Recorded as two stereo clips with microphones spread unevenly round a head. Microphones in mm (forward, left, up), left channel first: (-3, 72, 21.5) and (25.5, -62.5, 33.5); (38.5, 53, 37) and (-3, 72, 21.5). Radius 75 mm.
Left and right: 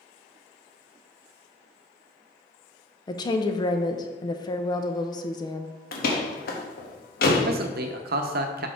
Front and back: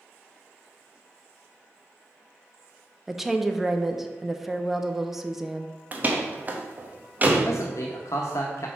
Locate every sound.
3.1 s a woman speaking: 110° left, 0.6 m
5.9 s a door slam: 110° left, 1.1 m
7.5 s a man speaking: 70° right, 0.8 m